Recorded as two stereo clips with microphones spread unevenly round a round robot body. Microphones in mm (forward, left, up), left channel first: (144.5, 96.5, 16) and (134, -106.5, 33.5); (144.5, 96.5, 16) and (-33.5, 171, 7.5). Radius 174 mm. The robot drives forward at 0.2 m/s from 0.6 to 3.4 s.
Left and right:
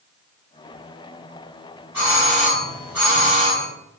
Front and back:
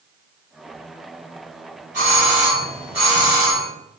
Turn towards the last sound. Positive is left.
turn(degrees=-175)